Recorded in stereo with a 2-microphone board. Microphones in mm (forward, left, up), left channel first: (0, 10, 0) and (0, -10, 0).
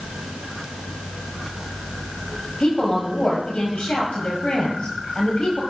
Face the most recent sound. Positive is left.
turn(degrees=55)  # may be behind; listen again after turning